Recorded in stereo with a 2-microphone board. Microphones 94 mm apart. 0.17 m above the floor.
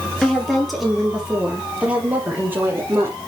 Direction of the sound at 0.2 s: 5° left (ahead or behind).